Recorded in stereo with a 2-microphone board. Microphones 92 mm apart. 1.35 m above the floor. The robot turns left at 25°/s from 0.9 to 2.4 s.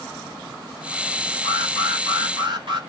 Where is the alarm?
85° right, 4 m; by 2.8 s 65° right (ahead or behind), 4 m.